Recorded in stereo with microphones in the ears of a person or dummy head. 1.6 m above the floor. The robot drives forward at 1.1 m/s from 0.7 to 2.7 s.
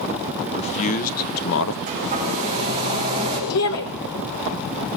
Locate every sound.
0.4 s a man speaking: 35° left (ahead or behind), 1.7 m; by 1.8 s 75° left (ahead or behind), 1.0 m
1.9 s a hair dryer: 30° right (ahead or behind), 9.5 m; by 3.4 s 25° right (ahead or behind), 10.5 m
3.5 s a shout: 70° left (ahead or behind), 1.7 m